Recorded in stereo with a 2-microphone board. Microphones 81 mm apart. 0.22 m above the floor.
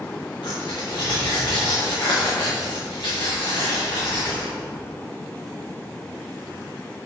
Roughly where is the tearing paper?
Left.